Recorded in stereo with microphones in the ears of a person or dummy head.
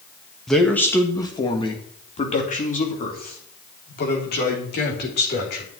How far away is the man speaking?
About 1.7 m.